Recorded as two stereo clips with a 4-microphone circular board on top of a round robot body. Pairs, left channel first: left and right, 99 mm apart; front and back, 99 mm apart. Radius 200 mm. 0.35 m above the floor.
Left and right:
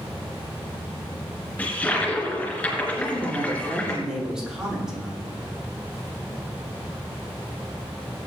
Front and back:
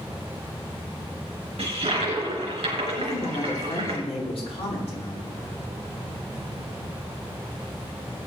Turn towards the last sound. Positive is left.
turn(degrees=-5)